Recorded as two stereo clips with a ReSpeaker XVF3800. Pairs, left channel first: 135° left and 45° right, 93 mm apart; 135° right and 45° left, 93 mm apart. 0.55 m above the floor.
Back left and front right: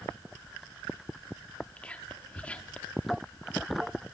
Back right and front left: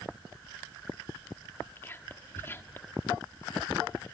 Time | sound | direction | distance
1.8 | whispering | 165° right | 1.4 m